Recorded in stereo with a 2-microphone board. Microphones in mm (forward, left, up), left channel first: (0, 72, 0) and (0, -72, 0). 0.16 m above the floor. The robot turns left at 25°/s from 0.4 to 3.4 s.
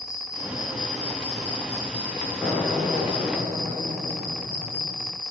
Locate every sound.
0.0 s an insect: 160° left, 7 m; by 5.3 s 85° left, 7 m
2.4 s an explosion: 5° right (ahead or behind), 8 m; by 5.2 s 30° right (ahead or behind), 8 m